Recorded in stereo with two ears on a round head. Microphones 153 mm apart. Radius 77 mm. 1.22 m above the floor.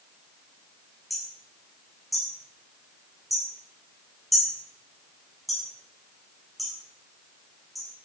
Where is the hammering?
Centre (ahead or behind), 6 m.